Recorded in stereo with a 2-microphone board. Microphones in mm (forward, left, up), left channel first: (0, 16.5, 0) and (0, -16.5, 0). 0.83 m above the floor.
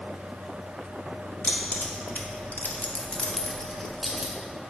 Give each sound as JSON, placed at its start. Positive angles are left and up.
{"t": 1.4, "sound": "keys jangling", "side_deg": 65, "distance_m": 1.0}